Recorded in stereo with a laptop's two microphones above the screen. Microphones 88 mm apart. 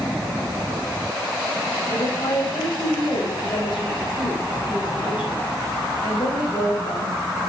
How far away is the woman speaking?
About 4.5 m.